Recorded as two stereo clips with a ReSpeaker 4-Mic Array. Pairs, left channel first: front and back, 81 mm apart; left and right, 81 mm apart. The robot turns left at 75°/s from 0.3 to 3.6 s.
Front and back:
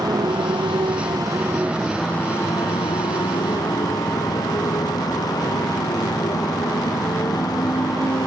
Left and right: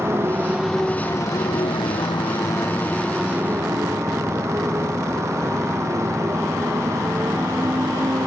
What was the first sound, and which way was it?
A motorcycle, 150° right.